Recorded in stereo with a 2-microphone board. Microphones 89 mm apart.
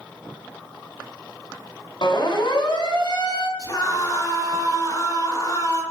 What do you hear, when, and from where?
2.0 s a siren: 65° left (ahead or behind), 4.5 m
3.6 s a scream: 45° left (ahead or behind), 7.5 m